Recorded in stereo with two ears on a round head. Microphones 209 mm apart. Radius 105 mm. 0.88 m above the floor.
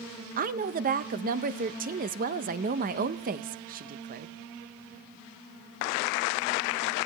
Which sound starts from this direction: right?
A woman speaking, at 0.4 s.